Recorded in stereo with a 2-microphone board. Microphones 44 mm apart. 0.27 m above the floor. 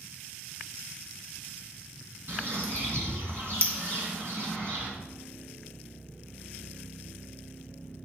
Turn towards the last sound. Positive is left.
turn(degrees=-60)  # may be behind; listen again after turning